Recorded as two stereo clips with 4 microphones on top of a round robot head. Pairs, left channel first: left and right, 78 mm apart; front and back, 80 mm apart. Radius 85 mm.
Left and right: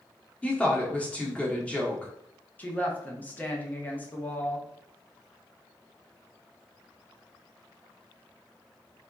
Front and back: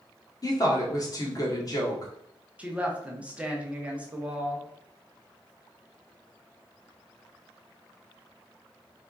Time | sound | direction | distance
0.4 | a woman speaking | 20° left | 1.7 m
2.6 | a woman speaking | 125° left | 1.1 m